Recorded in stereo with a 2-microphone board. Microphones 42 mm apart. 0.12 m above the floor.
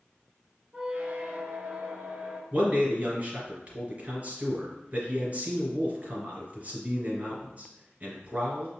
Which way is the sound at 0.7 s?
25° right (ahead or behind).